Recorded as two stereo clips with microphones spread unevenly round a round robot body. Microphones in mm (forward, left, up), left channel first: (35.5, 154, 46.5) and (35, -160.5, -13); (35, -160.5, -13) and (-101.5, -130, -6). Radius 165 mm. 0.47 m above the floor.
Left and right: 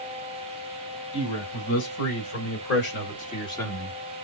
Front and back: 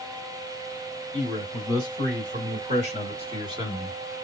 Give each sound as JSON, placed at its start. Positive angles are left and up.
{"t": 1.1, "sound": "a man speaking", "azimuth_deg": 135, "distance_m": 3.5}